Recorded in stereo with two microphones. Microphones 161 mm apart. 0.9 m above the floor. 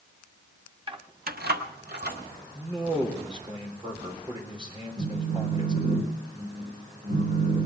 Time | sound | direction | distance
0.9 | keys jangling | 30° right (ahead or behind) | 0.8 m
2.5 | a man speaking | 30° right (ahead or behind) | 3.5 m
5.0 | a phone buzzing | 80° right | 2 m